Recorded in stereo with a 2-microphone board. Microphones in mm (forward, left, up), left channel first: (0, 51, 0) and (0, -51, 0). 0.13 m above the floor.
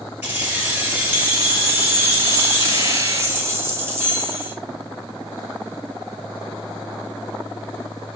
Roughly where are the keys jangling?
Centre.